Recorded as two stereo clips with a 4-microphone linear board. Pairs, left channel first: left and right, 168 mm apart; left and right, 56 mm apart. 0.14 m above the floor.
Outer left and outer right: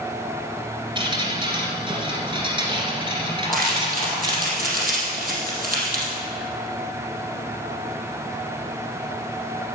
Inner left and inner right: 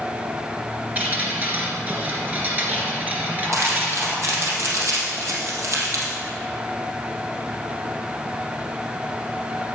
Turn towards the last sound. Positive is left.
turn(degrees=-60)  # may be behind; listen again after turning